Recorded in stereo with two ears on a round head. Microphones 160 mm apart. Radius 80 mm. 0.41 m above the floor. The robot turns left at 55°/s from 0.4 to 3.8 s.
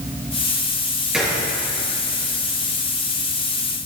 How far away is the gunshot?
About 4 m.